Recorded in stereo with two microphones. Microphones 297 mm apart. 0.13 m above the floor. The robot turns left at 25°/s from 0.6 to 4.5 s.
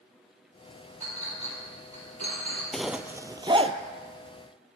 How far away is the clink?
About 2.5 m.